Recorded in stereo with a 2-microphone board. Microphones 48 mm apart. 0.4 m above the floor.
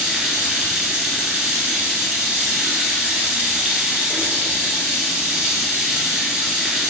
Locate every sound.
0.0 s running water: 25° right (ahead or behind), 0.9 m